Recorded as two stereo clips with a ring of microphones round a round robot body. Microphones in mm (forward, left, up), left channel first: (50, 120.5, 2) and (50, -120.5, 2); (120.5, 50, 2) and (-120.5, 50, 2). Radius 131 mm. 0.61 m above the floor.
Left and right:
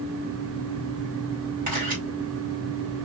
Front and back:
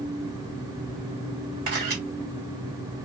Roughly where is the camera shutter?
Behind right.